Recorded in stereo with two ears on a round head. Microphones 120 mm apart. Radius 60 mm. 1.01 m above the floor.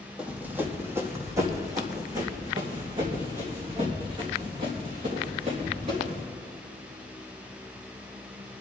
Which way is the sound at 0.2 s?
10° right (ahead or behind).